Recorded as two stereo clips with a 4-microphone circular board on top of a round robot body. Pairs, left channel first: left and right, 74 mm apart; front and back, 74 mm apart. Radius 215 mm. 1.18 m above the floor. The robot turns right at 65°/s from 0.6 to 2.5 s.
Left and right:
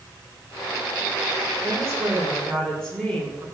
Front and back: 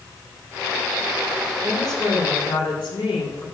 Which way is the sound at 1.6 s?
45° right.